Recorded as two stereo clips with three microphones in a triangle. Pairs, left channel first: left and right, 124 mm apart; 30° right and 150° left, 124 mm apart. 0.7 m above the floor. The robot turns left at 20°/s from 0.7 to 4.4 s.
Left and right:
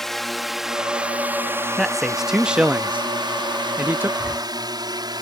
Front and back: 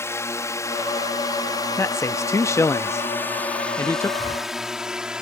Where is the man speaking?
Straight ahead; by 4.1 s 50° right.